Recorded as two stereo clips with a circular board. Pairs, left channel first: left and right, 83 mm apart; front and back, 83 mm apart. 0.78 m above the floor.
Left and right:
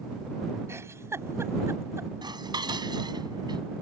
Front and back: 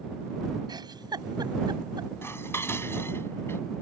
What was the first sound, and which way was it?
A giggle, 145° right.